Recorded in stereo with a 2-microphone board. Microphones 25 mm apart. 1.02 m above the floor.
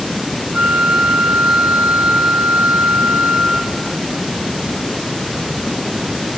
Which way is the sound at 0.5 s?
60° right (ahead or behind).